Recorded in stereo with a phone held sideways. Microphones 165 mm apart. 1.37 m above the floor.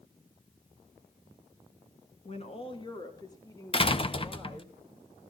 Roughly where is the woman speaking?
Left.